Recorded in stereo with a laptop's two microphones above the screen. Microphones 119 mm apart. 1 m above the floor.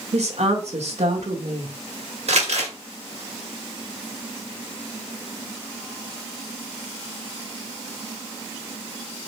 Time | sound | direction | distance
0.1 | a woman speaking | 70° right (ahead or behind) | 1.2 m
2.3 | crumpling | 75° right (ahead or behind) | 1.6 m